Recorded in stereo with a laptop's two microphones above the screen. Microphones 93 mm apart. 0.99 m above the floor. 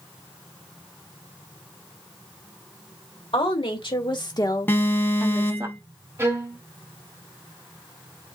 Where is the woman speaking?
60° left (ahead or behind), 2.5 m; by 5.7 s 35° right (ahead or behind), 1.0 m.